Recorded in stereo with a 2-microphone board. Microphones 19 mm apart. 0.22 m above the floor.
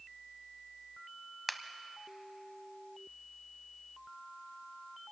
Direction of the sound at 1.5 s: 5° right (ahead or behind).